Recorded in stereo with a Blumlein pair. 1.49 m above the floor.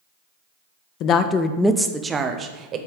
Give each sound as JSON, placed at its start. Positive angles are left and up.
{"t": 1.0, "sound": "a woman speaking", "azimuth_deg": 40, "distance_m": 0.5}